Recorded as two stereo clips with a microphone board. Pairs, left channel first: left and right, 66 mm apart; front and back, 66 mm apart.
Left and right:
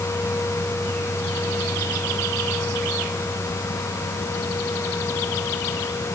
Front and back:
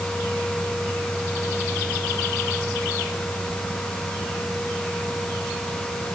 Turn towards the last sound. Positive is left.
No sound to turn to.